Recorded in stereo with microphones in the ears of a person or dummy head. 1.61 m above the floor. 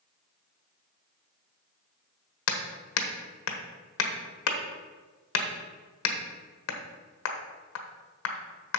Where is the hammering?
80° left, 1.2 m.